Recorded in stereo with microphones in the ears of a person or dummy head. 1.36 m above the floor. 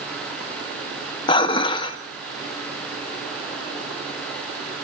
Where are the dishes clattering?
30° left (ahead or behind), 1.3 m.